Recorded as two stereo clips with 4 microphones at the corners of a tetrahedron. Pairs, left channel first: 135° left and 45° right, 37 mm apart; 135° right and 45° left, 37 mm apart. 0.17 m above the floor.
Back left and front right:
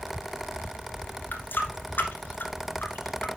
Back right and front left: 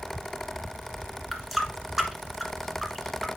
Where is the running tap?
130° left, 1.4 m.